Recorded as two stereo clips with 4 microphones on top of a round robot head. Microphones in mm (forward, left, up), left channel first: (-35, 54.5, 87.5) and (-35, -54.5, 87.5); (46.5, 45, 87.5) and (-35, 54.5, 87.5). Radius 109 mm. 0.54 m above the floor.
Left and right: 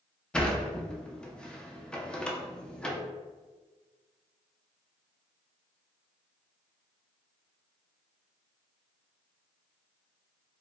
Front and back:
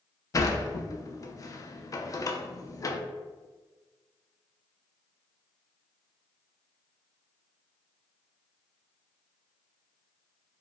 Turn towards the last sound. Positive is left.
turn(degrees=10)